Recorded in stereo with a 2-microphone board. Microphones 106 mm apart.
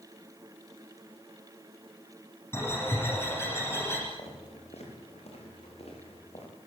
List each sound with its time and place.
2.5 s a bird: 25° left (ahead or behind), 9.5 m
4.2 s footsteps: 80° left, 9 m; by 6.5 s 75° left (ahead or behind), 10 m